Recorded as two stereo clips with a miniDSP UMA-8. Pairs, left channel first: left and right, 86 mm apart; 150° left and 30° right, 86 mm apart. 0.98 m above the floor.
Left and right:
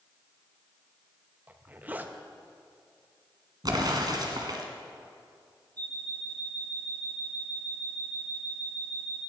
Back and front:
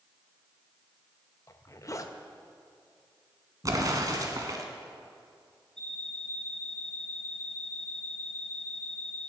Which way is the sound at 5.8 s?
130° right.